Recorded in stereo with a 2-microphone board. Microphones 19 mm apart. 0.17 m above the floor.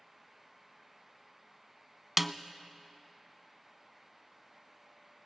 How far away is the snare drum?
About 0.6 m.